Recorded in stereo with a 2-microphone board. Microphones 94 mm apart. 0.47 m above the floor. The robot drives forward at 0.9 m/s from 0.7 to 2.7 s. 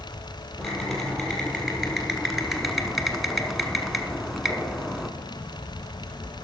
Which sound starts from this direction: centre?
Typing on a keyboard, at 0.6 s.